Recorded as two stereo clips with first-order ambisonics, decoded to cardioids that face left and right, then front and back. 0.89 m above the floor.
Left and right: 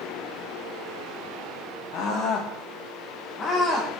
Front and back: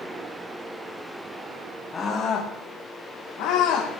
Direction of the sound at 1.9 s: 70° left.